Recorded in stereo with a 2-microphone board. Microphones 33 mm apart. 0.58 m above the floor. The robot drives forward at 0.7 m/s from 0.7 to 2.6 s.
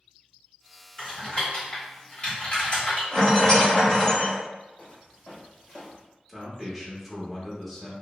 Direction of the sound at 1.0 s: 25° left (ahead or behind).